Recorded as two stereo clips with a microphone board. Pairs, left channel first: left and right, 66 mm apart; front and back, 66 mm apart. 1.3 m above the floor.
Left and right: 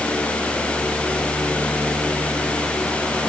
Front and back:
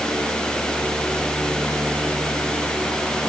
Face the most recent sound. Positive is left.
No sound to turn to.